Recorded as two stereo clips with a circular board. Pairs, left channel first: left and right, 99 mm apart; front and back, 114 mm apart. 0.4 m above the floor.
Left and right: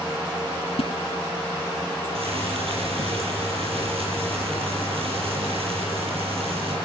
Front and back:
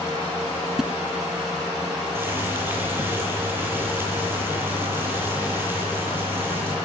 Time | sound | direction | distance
0.8 | a splash | 95° left | 0.9 m
2.1 | boiling | 110° right | 9.5 m